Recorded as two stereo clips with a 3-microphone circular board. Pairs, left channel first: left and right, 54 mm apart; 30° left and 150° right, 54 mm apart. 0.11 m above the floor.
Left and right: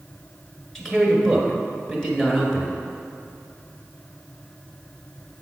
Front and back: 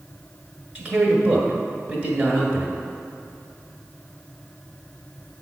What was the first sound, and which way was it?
A man speaking, 165° left.